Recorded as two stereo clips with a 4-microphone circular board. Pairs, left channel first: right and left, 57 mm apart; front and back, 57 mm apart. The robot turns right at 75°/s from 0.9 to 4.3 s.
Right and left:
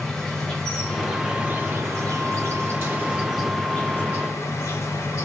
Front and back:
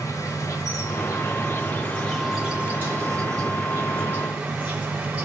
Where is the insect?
10° right, 1.0 m; by 5.2 s 115° right, 1.0 m.